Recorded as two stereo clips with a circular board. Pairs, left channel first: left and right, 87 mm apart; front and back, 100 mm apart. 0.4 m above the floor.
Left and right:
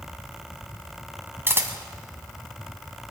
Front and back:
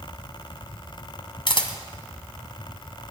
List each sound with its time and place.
1.5 s a camera shutter: 30° right, 1.7 m